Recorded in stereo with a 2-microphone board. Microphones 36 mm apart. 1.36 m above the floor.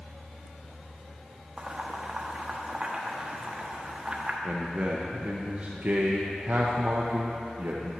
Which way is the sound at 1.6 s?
25° right (ahead or behind).